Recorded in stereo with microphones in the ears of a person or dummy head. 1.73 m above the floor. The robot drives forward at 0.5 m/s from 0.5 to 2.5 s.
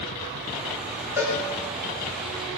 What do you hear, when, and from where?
1.2 s a cowbell: 10° right (ahead or behind), 4 m